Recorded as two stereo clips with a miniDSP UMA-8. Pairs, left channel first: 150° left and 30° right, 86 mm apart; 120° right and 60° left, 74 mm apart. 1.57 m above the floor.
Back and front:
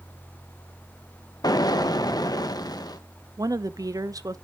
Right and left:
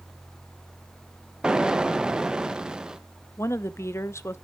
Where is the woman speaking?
75° right, 0.6 m.